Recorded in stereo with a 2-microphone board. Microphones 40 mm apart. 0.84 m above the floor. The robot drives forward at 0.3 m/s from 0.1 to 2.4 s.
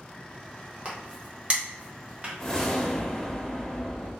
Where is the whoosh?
15° left (ahead or behind), 0.6 m.